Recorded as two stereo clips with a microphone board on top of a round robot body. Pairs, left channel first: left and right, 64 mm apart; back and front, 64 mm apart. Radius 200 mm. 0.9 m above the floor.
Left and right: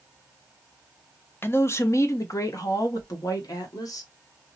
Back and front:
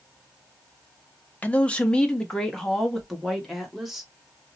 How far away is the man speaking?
About 0.9 m.